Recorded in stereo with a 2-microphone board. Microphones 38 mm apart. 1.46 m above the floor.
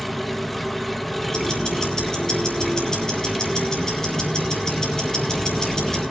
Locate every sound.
0.0 s an engine running: 5° left (ahead or behind), 0.9 m
1.3 s ticking: 20° left (ahead or behind), 4 m